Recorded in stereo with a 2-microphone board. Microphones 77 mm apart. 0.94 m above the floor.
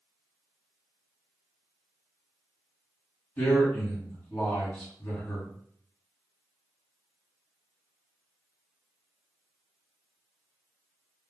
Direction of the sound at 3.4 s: 25° left (ahead or behind).